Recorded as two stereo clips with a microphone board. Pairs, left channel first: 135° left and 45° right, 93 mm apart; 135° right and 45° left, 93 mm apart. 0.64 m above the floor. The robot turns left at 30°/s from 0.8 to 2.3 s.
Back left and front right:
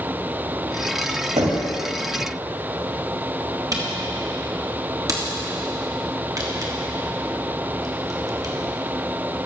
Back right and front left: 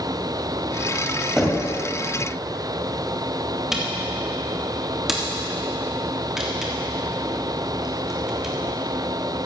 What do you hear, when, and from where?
1.4 s knocking: 40° right, 2.5 m; by 1.7 s 50° right, 2.5 m
3.7 s a camera shutter: 40° right, 1.5 m